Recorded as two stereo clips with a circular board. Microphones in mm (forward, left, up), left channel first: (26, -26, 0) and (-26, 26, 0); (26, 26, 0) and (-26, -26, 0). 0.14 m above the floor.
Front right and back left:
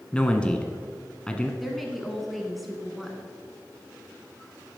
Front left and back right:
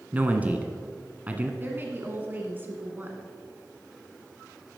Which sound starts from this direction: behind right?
A woman speaking, at 1.6 s.